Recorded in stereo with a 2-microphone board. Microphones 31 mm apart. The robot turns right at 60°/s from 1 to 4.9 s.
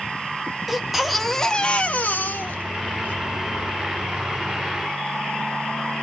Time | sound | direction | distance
0.7 | a baby crying | 5° right | 1.4 m